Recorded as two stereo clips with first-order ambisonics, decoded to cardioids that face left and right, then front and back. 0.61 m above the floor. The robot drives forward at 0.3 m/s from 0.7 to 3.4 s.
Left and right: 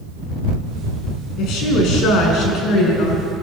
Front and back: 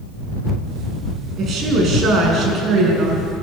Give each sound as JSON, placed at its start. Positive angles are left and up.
{"t": 1.4, "sound": "a woman speaking", "azimuth_deg": 125, "distance_m": 5.5}